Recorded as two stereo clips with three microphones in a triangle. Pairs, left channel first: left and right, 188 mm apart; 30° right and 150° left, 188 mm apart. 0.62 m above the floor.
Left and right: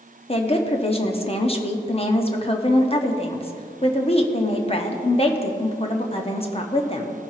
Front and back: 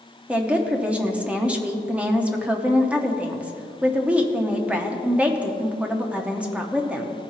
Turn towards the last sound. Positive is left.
turn(degrees=70)